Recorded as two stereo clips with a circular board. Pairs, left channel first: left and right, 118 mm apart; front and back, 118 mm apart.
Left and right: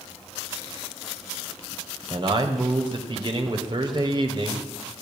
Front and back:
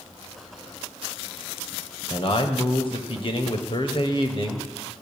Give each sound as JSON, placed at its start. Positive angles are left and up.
{"t": 2.1, "sound": "a man speaking", "azimuth_deg": -40, "distance_m": 2.0}